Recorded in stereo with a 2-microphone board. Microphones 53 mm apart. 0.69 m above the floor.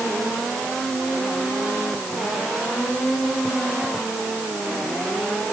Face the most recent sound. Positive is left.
No sound to turn to.